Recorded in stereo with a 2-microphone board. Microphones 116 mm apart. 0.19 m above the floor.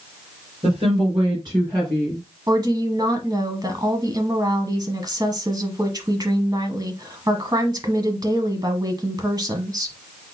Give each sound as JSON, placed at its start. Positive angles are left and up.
{"t": 0.6, "sound": "a woman speaking", "side_deg": -55, "distance_m": 3.5}
{"t": 2.5, "sound": "a woman speaking", "side_deg": -35, "distance_m": 1.2}